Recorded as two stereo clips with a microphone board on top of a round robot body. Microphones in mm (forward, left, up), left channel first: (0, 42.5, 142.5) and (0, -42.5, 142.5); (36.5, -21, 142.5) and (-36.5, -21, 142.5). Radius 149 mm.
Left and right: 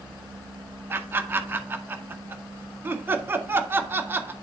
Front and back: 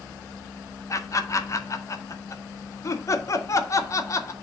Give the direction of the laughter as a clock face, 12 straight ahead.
1 o'clock.